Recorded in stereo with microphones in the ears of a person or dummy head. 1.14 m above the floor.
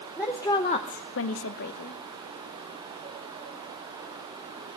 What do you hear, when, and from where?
0.2 s a woman speaking: 10° left (ahead or behind), 1.4 m; by 2.0 s 45° left (ahead or behind), 1.3 m